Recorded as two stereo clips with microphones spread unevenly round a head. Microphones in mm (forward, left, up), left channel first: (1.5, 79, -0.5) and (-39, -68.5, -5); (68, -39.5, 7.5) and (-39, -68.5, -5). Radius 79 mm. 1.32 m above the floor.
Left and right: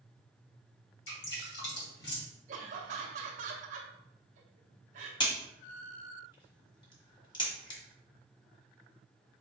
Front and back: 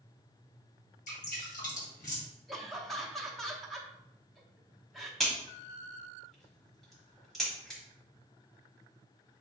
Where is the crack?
95° left, 1.3 m.